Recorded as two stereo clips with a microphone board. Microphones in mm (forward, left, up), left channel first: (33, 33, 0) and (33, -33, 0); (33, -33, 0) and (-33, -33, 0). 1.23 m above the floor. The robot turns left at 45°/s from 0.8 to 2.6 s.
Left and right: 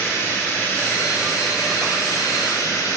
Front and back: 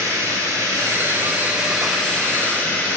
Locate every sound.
0.0 s running water: 140° left, 1.9 m; by 3.0 s 60° left, 1.9 m